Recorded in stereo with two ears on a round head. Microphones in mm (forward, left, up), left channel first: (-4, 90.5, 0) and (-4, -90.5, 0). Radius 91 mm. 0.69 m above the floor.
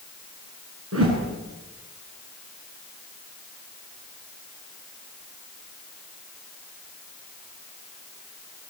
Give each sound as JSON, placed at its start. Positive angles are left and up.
{"t": 0.9, "sound": "a whoosh", "side_deg": -75, "distance_m": 7.0}